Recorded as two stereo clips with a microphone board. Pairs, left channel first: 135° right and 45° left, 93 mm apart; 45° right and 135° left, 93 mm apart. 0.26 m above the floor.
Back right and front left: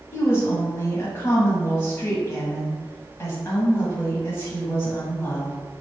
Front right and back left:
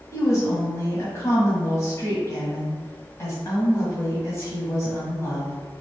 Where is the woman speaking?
85° right, 1.3 m.